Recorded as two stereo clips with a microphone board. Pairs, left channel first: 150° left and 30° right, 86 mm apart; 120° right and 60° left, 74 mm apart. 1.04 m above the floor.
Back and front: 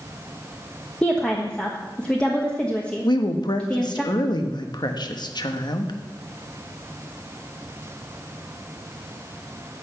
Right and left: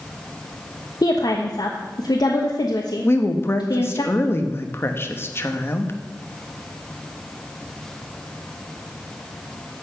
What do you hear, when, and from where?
1.0 s a woman speaking: 135° right, 1.2 m
3.0 s a woman speaking: 175° right, 1.2 m